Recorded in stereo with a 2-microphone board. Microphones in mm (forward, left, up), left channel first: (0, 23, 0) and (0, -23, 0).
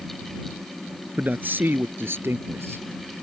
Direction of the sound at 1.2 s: 40° right (ahead or behind).